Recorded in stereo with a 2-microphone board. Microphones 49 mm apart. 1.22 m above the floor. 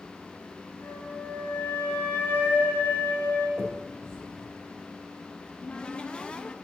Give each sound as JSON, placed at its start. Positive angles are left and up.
{"t": 0.8, "sound": "a flute", "side_deg": 35, "distance_m": 4.0}
{"t": 3.6, "sound": "a finger snap", "side_deg": -90, "distance_m": 4.0}
{"t": 5.4, "sound": "a cupboard door", "side_deg": 20, "distance_m": 0.5}